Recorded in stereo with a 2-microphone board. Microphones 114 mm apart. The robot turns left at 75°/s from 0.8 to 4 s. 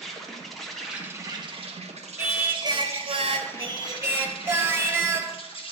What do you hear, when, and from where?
0.0 s an insect: 5° left, 1.4 m; by 5.7 s 125° left, 1.4 m
2.2 s singing: 15° right, 1.1 m; by 5.7 s 155° right, 1.1 m